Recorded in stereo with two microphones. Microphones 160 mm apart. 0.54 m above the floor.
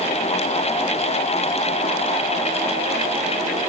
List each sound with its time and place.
Only background noise.